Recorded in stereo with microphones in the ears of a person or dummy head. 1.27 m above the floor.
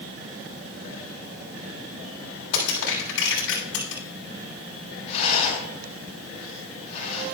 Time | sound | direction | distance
2.5 | crushing | 85° left | 6.5 m
5.1 | a rattle | 30° left (ahead or behind) | 5.5 m